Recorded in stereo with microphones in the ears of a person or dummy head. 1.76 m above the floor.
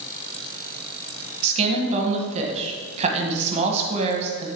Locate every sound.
1.4 s a woman speaking: 35° right (ahead or behind), 1.4 m